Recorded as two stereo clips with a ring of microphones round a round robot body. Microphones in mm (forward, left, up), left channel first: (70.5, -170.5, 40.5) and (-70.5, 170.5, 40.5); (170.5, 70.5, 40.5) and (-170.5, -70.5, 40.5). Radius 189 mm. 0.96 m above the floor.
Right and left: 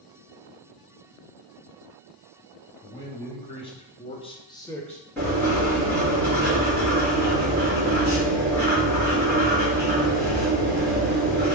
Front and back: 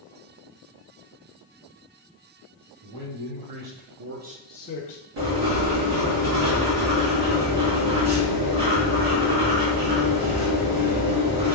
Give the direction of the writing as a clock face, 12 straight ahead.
5 o'clock.